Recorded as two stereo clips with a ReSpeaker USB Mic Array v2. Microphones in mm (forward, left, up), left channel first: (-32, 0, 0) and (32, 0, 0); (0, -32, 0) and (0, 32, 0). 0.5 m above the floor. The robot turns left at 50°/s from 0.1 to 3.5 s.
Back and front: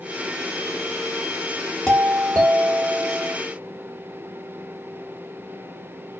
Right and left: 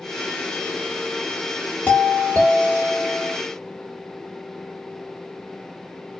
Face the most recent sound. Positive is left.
turn(degrees=175)